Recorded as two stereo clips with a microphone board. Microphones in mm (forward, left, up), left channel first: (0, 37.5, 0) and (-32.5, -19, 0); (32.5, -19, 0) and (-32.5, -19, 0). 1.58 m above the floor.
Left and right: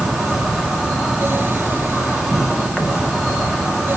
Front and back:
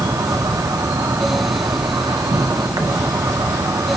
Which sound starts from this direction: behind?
An insect, at 0.0 s.